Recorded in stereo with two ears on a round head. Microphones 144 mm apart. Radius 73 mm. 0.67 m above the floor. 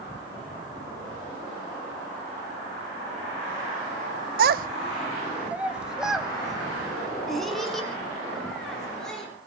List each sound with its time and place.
4.4 s a child speaking: 55° right (ahead or behind), 0.6 m; by 9.3 s 5° left (ahead or behind), 7.5 m